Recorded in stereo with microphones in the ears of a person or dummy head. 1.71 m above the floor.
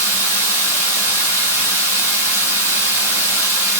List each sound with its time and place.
0.0 s running water: 20° right (ahead or behind), 3 m